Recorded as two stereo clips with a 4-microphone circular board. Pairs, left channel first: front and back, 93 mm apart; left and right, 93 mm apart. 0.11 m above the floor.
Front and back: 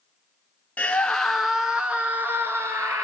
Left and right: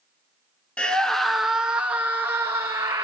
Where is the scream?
40° left, 1.2 m; by 3.0 s 130° right, 1.6 m.